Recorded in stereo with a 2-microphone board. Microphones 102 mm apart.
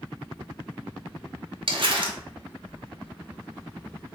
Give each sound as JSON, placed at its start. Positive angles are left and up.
{"t": 1.7, "sound": "crumpling", "side_deg": -55, "distance_m": 0.7}